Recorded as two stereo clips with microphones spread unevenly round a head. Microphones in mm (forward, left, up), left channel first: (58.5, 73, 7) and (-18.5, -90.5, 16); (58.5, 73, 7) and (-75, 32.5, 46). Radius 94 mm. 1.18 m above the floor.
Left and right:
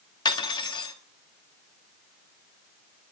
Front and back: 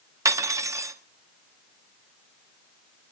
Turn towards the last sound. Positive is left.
turn(degrees=135)